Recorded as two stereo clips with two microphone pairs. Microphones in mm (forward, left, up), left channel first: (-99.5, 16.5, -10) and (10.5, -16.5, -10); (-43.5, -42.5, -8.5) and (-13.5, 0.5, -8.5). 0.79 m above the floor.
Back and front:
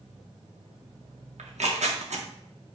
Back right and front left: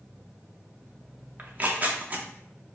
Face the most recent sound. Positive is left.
turn(degrees=-5)